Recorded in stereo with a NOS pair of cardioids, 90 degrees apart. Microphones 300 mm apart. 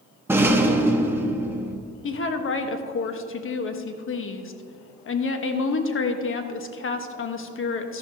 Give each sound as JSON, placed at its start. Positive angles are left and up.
{"t": 0.3, "sound": "a rattle", "azimuth_deg": -10, "distance_m": 1.2}
{"t": 2.0, "sound": "a woman speaking", "azimuth_deg": 45, "distance_m": 1.2}